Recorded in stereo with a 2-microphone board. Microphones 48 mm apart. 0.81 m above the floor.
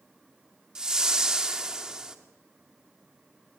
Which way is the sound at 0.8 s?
15° right (ahead or behind).